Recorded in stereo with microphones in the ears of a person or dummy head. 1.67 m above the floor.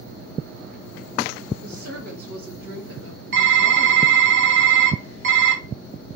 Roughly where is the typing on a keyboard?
Right.